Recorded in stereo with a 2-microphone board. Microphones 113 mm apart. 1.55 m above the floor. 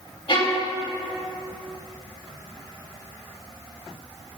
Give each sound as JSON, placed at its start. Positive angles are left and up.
{"t": 0.3, "sound": "a violin", "side_deg": 50, "distance_m": 3.5}